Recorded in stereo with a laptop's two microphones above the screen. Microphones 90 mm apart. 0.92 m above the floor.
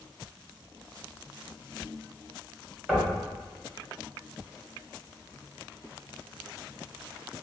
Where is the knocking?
5° right (ahead or behind), 1.9 m.